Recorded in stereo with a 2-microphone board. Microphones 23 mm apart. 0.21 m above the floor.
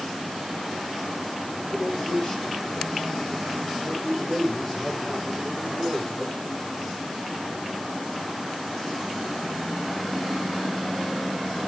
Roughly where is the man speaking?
Left.